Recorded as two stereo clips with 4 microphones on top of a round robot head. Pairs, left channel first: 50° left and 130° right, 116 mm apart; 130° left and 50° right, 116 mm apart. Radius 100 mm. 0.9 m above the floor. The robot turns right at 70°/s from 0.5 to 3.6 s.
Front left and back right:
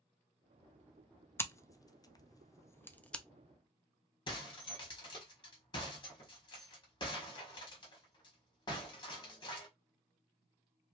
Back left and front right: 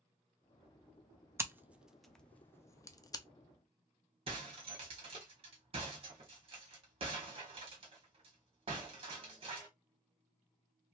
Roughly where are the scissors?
Ahead.